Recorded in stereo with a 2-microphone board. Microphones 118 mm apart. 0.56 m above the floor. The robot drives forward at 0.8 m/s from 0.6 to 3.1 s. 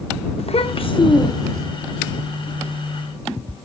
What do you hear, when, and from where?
0.4 s a child speaking: 60° left (ahead or behind), 0.7 m; by 1.7 s 30° left (ahead or behind), 1.2 m